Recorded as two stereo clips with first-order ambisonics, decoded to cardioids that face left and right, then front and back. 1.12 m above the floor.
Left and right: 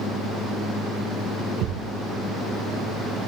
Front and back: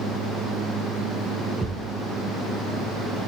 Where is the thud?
105° right, 1.3 m.